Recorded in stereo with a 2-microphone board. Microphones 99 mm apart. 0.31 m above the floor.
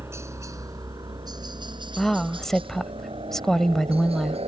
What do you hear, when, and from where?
0.0 s a helicopter: 25° right (ahead or behind); by 4.5 s 70° right (ahead or behind)
2.0 s a woman speaking: 5° left (ahead or behind)